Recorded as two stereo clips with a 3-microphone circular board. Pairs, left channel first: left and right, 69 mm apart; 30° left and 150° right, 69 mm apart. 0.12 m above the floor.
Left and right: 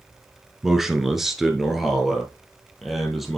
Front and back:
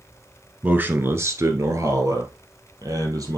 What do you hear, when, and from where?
0.6 s a man speaking: 170° right, 1.1 m; by 3.4 s straight behind, 3 m